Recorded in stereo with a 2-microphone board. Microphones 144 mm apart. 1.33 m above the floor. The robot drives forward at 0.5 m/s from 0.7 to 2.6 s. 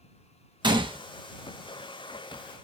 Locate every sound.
0.6 s a gunshot: 30° right (ahead or behind), 0.6 m; by 1.0 s 35° right (ahead or behind), 0.6 m